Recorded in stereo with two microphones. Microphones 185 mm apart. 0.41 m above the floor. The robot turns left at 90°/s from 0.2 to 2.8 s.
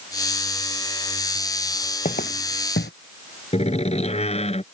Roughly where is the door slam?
Left.